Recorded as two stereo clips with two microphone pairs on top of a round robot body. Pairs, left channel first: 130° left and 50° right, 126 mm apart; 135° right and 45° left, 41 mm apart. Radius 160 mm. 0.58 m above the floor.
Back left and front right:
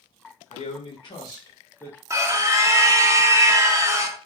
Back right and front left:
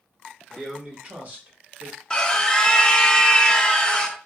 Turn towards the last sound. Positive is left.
turn(degrees=-75)